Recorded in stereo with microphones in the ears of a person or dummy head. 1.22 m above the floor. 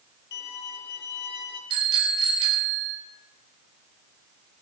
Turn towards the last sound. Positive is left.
turn(degrees=-30)  # may be behind; listen again after turning